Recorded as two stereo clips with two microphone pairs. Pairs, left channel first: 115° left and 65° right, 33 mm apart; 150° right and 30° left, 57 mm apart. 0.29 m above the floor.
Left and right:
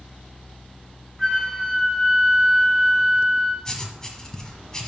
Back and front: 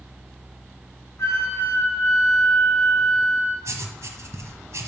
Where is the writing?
50° left, 1.2 m.